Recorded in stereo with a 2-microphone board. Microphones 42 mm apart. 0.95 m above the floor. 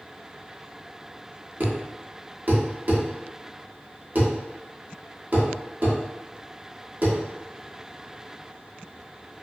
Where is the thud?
45° right (ahead or behind), 0.8 m.